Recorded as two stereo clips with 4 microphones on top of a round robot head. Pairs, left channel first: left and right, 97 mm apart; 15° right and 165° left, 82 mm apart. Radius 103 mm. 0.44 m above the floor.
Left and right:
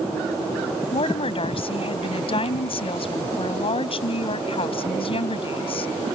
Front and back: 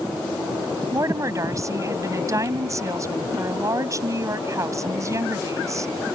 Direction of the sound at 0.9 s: 115° left.